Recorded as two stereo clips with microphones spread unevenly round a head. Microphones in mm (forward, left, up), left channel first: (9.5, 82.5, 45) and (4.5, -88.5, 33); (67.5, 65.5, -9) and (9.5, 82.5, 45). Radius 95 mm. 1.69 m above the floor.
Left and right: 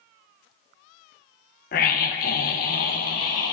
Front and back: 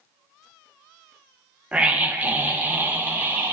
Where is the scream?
125° left, 1.2 m.